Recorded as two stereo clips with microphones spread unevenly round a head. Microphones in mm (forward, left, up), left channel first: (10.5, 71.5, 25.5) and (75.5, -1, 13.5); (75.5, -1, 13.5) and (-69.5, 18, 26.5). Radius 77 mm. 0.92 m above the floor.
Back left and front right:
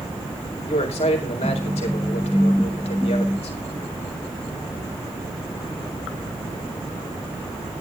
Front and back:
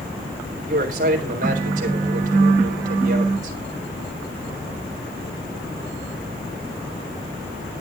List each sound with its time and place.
0.7 s a man speaking: 140° left, 4 m